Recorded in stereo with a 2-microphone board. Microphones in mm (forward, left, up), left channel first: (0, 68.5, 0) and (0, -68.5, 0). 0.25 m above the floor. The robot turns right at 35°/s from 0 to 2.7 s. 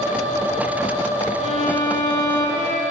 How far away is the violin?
About 1.1 m.